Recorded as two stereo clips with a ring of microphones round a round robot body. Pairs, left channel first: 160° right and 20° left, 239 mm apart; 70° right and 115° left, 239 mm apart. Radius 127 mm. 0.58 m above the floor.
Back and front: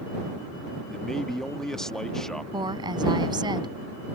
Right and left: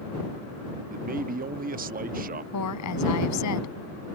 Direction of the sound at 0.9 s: 115° left.